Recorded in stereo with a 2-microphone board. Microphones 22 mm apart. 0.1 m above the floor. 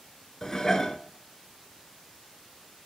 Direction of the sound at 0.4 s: 25° left (ahead or behind).